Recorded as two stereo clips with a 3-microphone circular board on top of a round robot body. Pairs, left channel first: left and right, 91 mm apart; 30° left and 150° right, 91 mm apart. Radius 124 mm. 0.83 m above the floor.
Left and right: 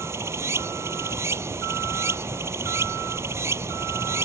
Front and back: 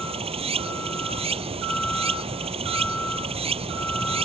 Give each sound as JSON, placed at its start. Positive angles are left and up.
{"t": 0.0, "sound": "running water", "azimuth_deg": -150}